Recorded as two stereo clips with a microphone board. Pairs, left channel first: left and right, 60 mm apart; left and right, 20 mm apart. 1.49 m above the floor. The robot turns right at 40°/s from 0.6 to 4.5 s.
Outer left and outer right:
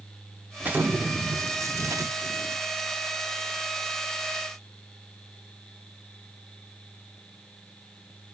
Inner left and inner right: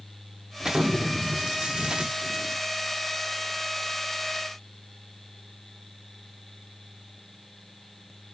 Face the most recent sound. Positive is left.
turn(degrees=5)